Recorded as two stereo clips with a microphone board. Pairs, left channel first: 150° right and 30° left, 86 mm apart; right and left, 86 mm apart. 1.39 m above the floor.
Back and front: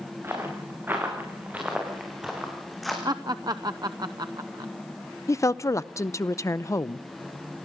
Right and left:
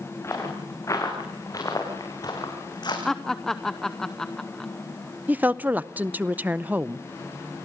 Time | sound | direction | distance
0.2 | footsteps | 35° right | 7.5 m
3.0 | laughter | 5° right | 0.8 m
5.3 | a woman speaking | 160° left | 0.6 m